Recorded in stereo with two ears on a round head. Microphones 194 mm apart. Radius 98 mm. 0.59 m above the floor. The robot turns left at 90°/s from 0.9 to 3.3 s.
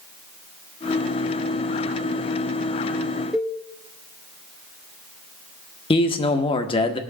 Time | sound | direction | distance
3.3 | a cowbell | 5° right (ahead or behind) | 1.0 m
5.9 | a man speaking | 25° left (ahead or behind) | 0.9 m